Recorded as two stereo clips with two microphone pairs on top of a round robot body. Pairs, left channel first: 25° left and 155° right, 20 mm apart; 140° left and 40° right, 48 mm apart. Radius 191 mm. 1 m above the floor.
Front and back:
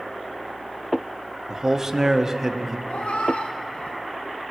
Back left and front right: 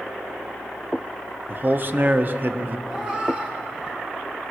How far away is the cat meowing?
About 0.6 m.